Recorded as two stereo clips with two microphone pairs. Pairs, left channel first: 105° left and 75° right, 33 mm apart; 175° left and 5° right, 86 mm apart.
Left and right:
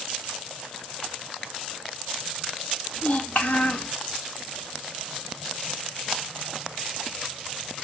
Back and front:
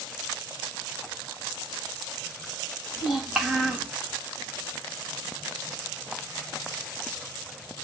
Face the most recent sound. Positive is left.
turn(degrees=85)